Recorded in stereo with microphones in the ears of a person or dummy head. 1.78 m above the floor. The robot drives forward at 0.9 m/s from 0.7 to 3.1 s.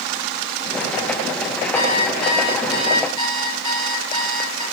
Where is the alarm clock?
50° left (ahead or behind), 2.5 m; by 4.6 s 35° left (ahead or behind), 3 m.